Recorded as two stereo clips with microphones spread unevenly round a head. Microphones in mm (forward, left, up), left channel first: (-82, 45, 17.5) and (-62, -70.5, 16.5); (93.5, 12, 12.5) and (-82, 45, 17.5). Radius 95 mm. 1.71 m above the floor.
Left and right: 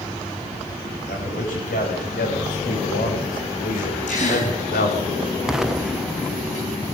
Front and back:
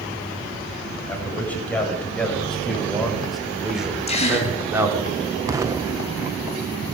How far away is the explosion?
About 0.7 m.